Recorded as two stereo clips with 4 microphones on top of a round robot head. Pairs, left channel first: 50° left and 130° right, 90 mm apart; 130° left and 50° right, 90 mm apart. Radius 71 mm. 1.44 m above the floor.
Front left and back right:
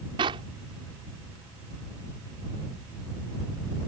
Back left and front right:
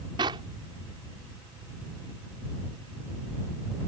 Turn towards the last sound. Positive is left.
turn(degrees=-95)